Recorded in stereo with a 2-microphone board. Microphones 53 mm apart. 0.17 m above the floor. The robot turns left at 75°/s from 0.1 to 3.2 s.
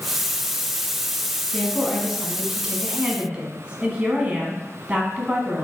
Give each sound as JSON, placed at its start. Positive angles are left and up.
{"t": 1.5, "sound": "a woman speaking", "side_deg": 15, "distance_m": 1.4}